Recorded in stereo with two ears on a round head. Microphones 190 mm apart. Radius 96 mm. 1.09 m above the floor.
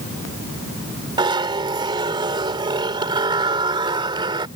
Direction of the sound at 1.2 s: 25° right (ahead or behind).